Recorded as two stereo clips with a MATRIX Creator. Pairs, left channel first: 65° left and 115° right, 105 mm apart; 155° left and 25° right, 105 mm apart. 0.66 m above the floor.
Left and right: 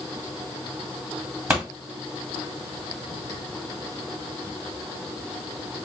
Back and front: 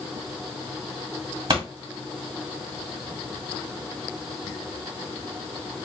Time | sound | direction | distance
1.5 | a pop | 45° right | 1.6 m